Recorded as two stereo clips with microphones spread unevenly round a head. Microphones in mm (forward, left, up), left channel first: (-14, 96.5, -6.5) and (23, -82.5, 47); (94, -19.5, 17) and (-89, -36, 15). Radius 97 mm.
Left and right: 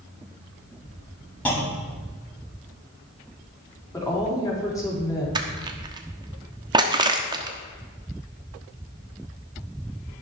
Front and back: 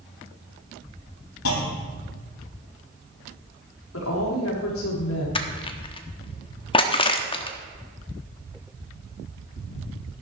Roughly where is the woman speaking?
Ahead left.